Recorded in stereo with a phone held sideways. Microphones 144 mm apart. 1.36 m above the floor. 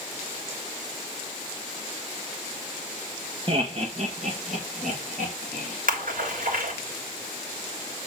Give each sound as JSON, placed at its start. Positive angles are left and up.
{"t": 3.5, "sound": "laughter", "side_deg": -40, "distance_m": 1.1}
{"t": 5.9, "sound": "a splash", "side_deg": -70, "distance_m": 3.0}